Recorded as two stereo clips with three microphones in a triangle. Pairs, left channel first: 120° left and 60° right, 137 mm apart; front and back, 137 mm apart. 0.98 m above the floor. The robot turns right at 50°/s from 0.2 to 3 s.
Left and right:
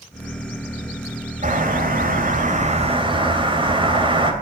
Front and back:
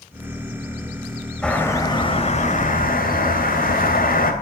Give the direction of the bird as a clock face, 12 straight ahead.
3 o'clock.